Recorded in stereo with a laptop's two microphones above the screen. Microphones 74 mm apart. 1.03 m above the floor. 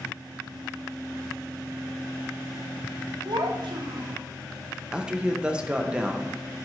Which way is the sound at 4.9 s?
15° right (ahead or behind).